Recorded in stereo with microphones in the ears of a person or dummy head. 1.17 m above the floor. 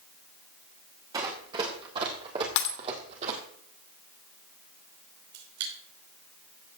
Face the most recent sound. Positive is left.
turn(degrees=-80)